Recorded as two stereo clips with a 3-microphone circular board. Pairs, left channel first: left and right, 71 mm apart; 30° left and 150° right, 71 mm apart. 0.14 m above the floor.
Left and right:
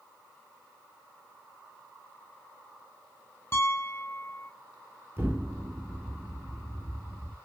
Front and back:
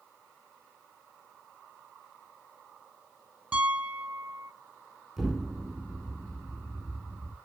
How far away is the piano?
About 0.7 m.